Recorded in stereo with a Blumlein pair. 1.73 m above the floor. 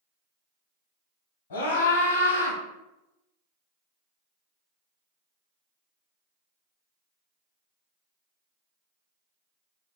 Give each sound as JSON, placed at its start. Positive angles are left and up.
{"t": 1.5, "sound": "a scream", "azimuth_deg": 60, "distance_m": 1.1}